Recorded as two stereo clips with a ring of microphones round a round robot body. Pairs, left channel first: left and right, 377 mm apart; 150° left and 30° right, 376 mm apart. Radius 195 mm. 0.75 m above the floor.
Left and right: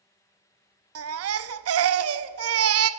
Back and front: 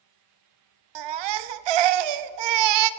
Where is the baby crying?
35° right, 0.7 m.